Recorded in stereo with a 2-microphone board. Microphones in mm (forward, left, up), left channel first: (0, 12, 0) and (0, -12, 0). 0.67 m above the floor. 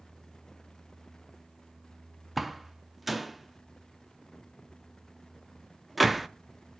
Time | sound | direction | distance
2.4 | a door slam | 5° right (ahead or behind) | 0.5 m